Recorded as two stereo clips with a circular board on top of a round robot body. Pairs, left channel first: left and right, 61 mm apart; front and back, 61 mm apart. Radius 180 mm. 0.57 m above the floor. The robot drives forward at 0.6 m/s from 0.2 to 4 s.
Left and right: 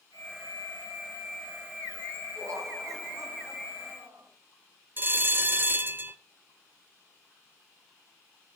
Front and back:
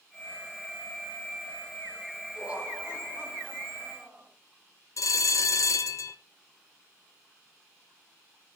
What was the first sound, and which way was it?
Laughter, 110° right.